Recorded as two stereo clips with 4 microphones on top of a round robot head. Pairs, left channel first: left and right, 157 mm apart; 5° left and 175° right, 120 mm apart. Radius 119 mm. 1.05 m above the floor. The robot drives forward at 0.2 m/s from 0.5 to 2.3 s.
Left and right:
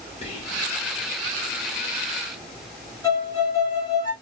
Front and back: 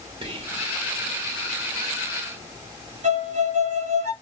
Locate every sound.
0.2 s whispering: 140° left, 1.7 m
3.0 s a violin: 160° left, 2 m